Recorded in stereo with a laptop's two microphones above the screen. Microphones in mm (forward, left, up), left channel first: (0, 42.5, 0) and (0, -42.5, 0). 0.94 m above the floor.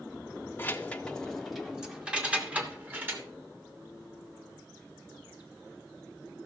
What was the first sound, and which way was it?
Keys jangling, 25° left (ahead or behind).